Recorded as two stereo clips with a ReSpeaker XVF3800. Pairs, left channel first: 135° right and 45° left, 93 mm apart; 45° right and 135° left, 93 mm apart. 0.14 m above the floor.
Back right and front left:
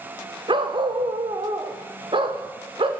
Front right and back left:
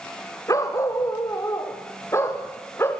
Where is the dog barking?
10° left, 4 m; by 2.9 s 20° left, 5.5 m.